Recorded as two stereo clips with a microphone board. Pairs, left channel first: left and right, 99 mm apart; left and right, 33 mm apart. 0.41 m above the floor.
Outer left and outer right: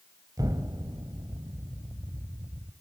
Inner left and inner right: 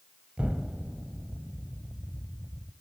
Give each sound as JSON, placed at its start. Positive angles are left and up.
{"t": 0.4, "sound": "an explosion", "side_deg": -40, "distance_m": 1.5}